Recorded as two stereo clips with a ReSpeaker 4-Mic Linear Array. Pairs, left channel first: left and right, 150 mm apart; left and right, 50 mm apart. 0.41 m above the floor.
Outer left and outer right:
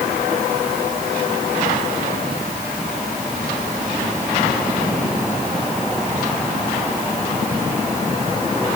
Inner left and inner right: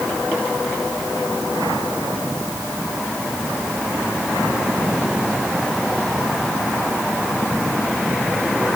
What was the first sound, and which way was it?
Only background noise.